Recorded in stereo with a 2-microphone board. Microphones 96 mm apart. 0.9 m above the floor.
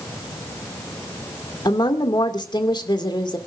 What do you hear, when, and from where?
1.6 s a woman speaking: 45° left (ahead or behind), 2 m